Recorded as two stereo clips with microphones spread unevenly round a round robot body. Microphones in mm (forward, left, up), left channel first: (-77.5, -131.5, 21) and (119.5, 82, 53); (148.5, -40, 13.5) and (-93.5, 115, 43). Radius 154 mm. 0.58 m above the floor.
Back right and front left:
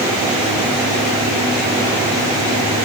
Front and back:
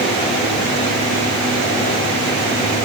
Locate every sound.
Only background noise.